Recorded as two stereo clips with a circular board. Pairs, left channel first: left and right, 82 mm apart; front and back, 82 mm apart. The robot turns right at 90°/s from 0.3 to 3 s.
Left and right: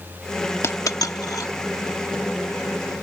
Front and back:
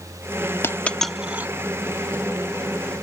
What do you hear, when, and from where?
0.6 s a dropped coin: 50° left; by 1.5 s 125° left